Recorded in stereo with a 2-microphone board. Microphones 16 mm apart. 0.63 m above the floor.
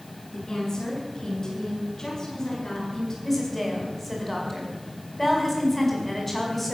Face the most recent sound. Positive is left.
turn(degrees=15)  # may be behind; listen again after turning